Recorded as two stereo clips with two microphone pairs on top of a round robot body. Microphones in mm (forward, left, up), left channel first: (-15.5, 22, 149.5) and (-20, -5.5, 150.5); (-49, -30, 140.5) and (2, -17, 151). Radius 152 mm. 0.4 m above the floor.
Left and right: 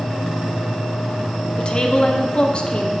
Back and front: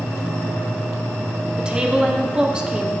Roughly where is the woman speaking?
Left.